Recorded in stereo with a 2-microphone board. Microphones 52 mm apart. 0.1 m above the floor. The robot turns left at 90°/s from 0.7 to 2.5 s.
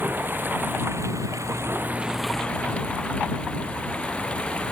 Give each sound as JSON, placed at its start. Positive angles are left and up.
{"t": 0.0, "sound": "running water", "azimuth_deg": -40}